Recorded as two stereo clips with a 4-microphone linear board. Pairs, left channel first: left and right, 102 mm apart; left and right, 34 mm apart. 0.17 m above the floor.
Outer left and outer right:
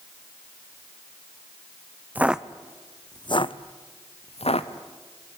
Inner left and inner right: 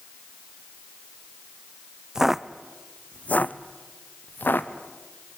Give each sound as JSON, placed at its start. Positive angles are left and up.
{"t": 2.1, "sound": "footsteps", "side_deg": -15, "distance_m": 0.8}